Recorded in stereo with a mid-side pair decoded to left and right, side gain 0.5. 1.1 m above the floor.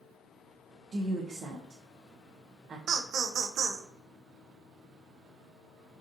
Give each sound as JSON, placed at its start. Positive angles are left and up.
{"t": 0.9, "sound": "a woman speaking", "azimuth_deg": -45, "distance_m": 0.6}
{"t": 2.9, "sound": "laughter", "azimuth_deg": -60, "distance_m": 0.6}